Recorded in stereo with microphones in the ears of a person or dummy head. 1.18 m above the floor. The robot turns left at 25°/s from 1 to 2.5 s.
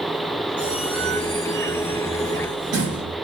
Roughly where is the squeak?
Ahead.